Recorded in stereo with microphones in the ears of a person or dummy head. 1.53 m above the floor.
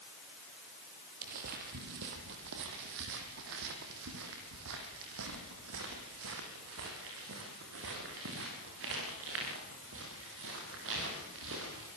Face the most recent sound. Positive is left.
turn(degrees=-75)  # may be behind; listen again after turning